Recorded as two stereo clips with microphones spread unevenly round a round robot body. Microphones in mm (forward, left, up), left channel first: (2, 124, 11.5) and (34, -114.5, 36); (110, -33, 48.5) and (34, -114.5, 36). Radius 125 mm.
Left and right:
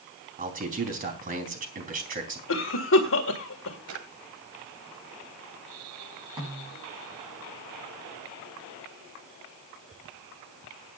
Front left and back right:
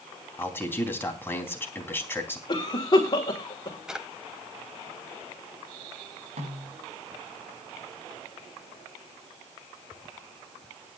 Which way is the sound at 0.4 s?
25° right.